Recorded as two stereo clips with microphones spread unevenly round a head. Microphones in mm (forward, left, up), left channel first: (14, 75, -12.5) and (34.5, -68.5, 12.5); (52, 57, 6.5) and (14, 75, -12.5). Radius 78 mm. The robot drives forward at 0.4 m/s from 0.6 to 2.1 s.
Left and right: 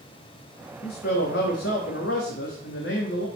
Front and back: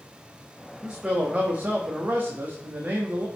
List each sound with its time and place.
0.8 s a man speaking: 85° left, 1.4 m; by 3.3 s 110° left, 1.5 m